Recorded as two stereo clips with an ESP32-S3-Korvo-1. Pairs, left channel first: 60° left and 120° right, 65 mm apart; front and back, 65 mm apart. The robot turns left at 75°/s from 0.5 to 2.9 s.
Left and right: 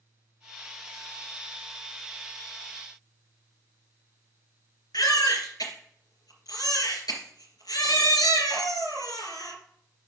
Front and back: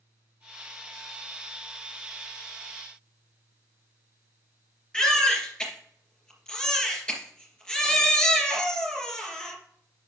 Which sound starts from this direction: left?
A baby crying, at 4.9 s.